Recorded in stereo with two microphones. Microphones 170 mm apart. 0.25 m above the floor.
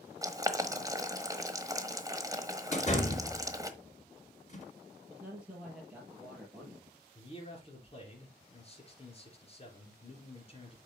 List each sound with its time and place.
0.2 s boiling: 20° right (ahead or behind), 1.2 m
2.7 s a door slam: 40° left (ahead or behind), 2.5 m
5.1 s a man speaking: 5° right (ahead or behind), 5 m
7.2 s a man speaking: 35° left (ahead or behind), 4 m